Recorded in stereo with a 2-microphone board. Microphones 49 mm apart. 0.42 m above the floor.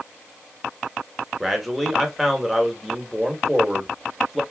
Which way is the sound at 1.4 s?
Centre (ahead or behind).